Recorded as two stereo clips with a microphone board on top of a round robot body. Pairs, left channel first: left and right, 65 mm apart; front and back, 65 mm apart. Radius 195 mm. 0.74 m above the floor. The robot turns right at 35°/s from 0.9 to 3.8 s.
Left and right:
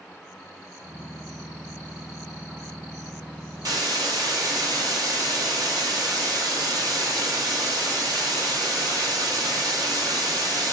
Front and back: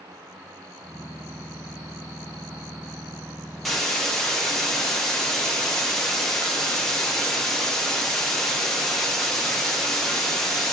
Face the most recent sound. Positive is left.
turn(degrees=-80)